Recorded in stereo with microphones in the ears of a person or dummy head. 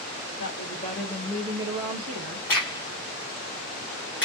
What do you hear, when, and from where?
0.4 s a woman speaking: 50° left (ahead or behind), 1.2 m; by 2.5 s 60° right (ahead or behind), 1.1 m
2.5 s a crack: 15° left (ahead or behind), 0.8 m